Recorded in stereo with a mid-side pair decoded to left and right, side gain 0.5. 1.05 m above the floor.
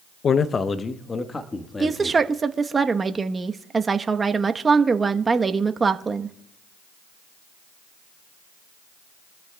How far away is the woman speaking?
About 1.0 m.